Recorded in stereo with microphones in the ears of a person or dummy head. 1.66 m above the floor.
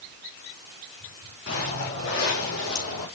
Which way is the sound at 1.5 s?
55° left (ahead or behind).